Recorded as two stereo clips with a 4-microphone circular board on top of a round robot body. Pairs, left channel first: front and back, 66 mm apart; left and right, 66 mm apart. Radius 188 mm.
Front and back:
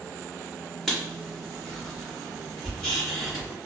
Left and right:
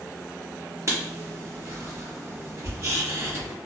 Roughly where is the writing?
Right.